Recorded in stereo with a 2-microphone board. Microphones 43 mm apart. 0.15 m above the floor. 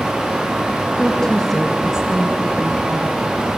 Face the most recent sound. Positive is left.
turn(degrees=-55)  # may be behind; listen again after turning